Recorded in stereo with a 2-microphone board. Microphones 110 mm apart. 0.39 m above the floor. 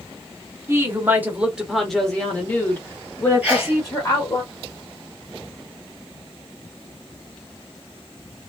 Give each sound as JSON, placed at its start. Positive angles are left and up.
{"t": 0.7, "sound": "a woman speaking", "side_deg": -25, "distance_m": 1.1}
{"t": 3.4, "sound": "a sneeze", "side_deg": -10, "distance_m": 1.8}